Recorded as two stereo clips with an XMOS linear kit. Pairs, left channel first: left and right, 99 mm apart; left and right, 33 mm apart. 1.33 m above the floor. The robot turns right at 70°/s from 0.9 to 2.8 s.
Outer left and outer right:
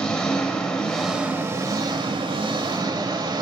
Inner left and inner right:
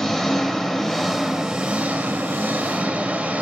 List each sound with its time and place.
0.0 s an engine running: 170° left, 1.9 m; by 3.4 s 55° right, 1.9 m